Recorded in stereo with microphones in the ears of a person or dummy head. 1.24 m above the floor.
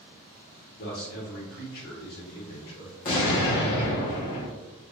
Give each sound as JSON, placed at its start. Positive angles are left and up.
{"t": 0.8, "sound": "a man speaking", "side_deg": 50, "distance_m": 0.9}
{"t": 3.0, "sound": "an explosion", "side_deg": 35, "distance_m": 0.9}